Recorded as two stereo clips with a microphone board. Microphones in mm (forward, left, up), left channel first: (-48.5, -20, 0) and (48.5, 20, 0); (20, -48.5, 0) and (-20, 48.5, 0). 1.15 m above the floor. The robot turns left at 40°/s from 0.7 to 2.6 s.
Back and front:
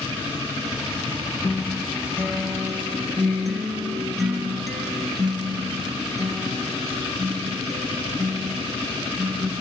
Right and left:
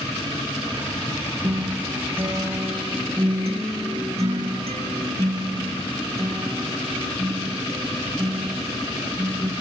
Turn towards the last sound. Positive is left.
turn(degrees=110)